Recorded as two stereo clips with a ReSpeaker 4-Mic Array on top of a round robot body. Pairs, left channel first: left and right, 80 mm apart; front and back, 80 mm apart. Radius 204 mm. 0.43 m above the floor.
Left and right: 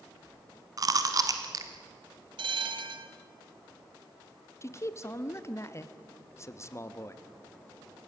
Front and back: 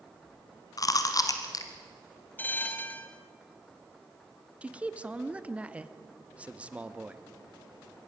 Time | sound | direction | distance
0.8 | chewing | 45° right | 1.3 m
2.4 | a bell | 70° right | 1.0 m
4.6 | a man speaking | 115° left | 1.1 m